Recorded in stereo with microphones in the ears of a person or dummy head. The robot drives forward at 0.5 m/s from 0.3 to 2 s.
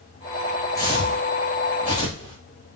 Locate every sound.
0.8 s footsteps: 20° left (ahead or behind), 1.6 m